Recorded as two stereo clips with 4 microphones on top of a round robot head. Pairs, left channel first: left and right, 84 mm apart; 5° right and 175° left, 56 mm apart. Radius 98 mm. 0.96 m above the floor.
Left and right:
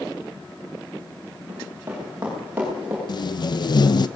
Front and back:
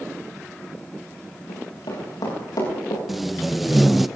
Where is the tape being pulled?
90° left, 1.1 m.